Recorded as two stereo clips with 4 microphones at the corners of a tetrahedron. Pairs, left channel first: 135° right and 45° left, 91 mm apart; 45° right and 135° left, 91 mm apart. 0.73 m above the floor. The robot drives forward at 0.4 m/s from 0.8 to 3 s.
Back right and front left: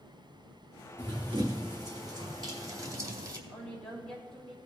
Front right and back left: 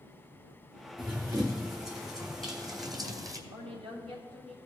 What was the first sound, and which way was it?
Running footsteps, 85° left.